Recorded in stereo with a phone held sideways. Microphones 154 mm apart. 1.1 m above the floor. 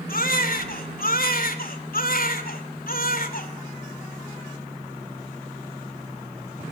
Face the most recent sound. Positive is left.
turn(degrees=70)  # may be behind; listen again after turning